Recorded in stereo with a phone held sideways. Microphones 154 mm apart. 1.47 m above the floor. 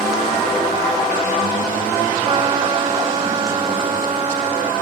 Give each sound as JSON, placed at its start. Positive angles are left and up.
{"t": 2.2, "sound": "a trumpet", "side_deg": -40, "distance_m": 2.5}